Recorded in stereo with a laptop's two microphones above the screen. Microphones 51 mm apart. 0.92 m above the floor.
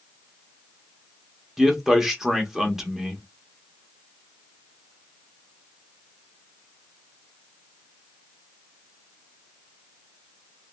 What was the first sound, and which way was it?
A man speaking, 10° right (ahead or behind).